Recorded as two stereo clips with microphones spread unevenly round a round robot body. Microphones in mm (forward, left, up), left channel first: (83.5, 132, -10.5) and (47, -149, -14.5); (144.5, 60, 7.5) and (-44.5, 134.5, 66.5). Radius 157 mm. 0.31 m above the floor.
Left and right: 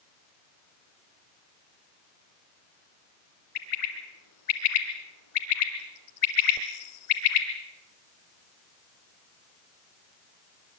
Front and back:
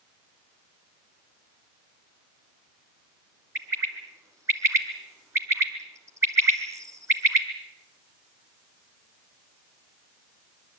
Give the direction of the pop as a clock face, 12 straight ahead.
I don't hear a pop.